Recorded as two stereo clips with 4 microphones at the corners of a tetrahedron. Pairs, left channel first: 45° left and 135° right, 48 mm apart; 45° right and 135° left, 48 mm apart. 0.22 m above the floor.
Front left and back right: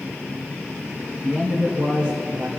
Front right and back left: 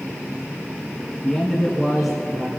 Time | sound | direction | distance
1.2 | a man speaking | 125° right | 2.5 m